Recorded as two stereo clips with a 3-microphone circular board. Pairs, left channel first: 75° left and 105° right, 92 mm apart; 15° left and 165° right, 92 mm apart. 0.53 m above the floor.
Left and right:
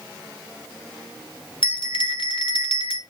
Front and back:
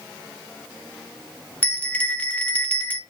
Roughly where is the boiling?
No boiling in this recording.